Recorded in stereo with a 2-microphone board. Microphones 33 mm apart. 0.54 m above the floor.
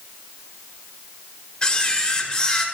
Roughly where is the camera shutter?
Left.